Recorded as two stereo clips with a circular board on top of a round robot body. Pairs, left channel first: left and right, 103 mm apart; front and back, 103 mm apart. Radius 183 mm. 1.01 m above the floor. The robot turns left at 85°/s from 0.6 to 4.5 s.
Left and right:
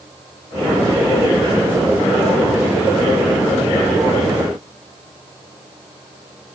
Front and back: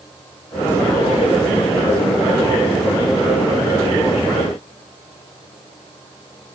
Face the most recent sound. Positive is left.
No sound to turn to.